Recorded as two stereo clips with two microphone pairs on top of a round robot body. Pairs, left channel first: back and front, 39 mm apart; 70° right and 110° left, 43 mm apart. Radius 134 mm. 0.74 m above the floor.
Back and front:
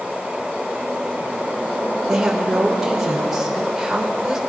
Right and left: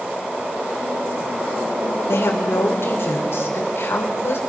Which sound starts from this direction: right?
A woman speaking, at 2.1 s.